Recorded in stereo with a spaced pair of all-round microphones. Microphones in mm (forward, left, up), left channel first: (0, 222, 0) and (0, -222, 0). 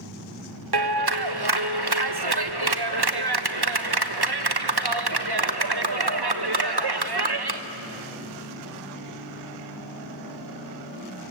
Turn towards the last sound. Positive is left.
turn(degrees=-60)  # may be behind; listen again after turning